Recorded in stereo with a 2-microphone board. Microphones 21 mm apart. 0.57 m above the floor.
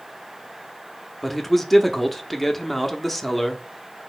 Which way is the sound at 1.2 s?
5° left (ahead or behind).